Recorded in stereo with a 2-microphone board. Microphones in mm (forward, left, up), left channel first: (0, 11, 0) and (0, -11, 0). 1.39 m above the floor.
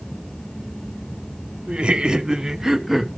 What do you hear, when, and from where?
1.7 s laughter: 50° right (ahead or behind), 1.2 m; by 3.1 s 5° right (ahead or behind), 1.3 m